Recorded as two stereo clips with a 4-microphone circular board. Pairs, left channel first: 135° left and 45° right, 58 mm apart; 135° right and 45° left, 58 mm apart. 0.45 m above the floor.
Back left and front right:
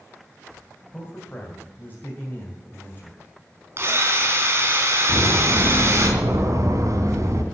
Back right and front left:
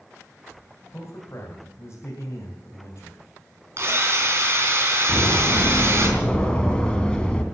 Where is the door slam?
60° right, 2 m.